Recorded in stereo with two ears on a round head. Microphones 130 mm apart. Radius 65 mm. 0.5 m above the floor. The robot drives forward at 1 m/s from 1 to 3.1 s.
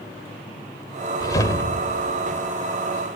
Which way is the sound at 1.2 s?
25° left (ahead or behind).